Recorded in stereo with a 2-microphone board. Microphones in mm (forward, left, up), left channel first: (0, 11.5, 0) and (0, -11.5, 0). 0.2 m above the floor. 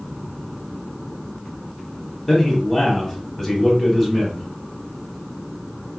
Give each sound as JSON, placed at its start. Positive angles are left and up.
{"t": 2.3, "sound": "a man speaking", "side_deg": 15, "distance_m": 1.0}